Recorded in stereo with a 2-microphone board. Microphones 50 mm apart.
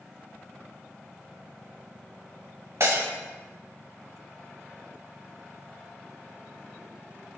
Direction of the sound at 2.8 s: 65° right (ahead or behind).